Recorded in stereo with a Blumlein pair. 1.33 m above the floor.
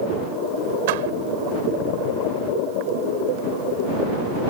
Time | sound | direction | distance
0.9 | a door slam | 50° right | ?